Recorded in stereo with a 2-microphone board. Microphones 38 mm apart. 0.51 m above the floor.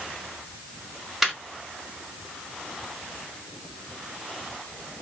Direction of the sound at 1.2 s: Centre (ahead or behind).